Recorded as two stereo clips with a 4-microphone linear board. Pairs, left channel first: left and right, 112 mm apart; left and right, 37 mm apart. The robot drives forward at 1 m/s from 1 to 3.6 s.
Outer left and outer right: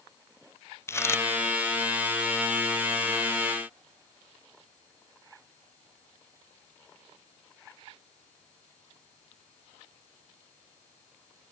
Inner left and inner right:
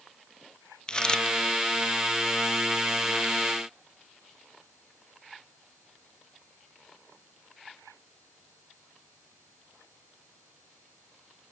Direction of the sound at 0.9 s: 25° left (ahead or behind).